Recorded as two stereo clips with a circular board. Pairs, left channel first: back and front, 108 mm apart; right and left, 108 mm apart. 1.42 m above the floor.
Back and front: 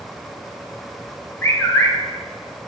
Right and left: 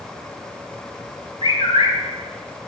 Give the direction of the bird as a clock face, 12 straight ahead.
4 o'clock.